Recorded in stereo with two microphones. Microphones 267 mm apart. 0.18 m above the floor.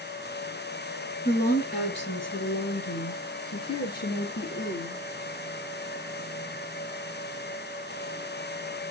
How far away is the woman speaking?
About 2.5 m.